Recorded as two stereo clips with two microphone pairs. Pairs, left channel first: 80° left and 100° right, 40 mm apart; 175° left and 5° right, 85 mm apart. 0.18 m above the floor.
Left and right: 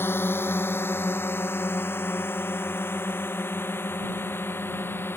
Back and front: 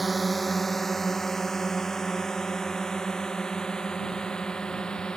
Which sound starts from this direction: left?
A drone, at 0.0 s.